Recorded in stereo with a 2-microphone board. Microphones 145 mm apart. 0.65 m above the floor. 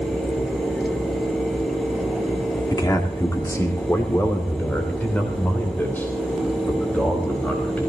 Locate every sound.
2.7 s a man speaking: 25° left (ahead or behind), 1.6 m; by 7.9 s 10° left (ahead or behind), 4.5 m